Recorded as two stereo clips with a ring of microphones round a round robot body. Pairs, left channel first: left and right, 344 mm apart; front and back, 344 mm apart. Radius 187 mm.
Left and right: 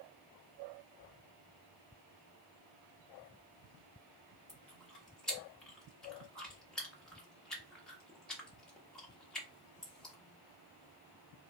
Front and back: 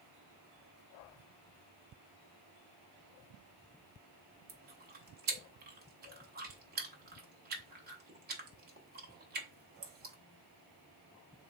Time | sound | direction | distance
4.5 | chewing | 175° left | 0.7 m